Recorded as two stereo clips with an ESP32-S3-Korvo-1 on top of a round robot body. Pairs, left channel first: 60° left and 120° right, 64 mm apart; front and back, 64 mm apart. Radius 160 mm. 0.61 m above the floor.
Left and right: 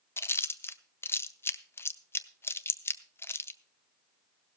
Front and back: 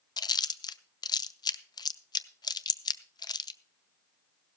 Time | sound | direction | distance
0.2 | chewing | 5° left | 0.7 m